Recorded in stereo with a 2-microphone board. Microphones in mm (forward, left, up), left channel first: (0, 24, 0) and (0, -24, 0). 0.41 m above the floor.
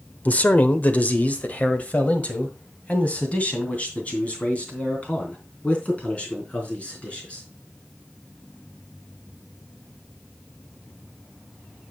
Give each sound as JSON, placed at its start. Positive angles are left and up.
{"t": 0.2, "sound": "a man speaking", "side_deg": 40, "distance_m": 0.9}